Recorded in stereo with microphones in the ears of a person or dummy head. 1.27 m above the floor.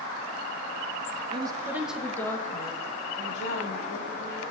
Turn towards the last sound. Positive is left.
turn(degrees=55)  # may be behind; listen again after turning